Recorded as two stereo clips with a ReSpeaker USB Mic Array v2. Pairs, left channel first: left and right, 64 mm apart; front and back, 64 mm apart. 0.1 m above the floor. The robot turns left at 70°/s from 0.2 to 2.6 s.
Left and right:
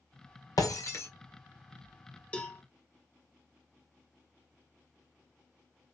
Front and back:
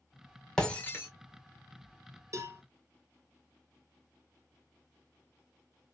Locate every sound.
0.6 s breaking glass: 80° left, 1.9 m; by 1.1 s 45° left, 1.9 m
2.3 s a cowbell: 160° left, 1.1 m; by 2.6 s 140° left, 1.1 m